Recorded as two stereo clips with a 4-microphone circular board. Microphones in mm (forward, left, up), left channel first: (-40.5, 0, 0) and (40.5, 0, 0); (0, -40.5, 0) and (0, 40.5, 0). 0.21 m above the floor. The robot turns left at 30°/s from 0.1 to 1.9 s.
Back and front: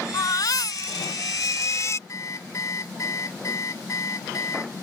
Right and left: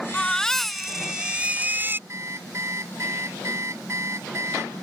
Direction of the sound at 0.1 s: 165° right.